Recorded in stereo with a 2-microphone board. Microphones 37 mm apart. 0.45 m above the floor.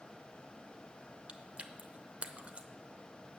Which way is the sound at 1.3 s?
35° right (ahead or behind).